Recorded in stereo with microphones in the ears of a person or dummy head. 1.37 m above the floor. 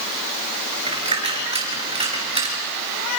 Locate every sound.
0.9 s a dropped coin: 35° right (ahead or behind), 4.5 m